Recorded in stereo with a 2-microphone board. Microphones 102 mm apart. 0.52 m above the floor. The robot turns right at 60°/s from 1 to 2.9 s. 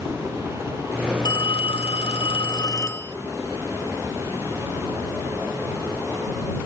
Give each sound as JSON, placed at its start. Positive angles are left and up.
{"t": 1.2, "sound": "a phone ringing", "azimuth_deg": 50}